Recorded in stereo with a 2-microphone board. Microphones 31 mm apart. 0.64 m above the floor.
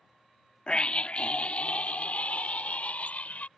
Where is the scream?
35° left (ahead or behind); by 3.5 s 55° left (ahead or behind).